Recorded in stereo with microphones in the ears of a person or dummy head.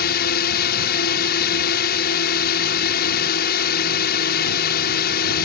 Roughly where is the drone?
Left.